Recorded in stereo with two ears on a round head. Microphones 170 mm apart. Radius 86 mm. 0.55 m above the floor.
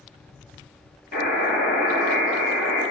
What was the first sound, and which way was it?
A buzzer, 50° left (ahead or behind).